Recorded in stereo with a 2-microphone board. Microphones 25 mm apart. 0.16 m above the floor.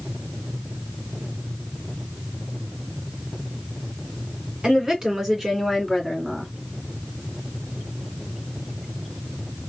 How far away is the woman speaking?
About 1.8 m.